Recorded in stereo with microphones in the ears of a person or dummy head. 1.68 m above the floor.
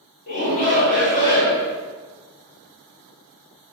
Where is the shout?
50° left (ahead or behind), 1.5 m.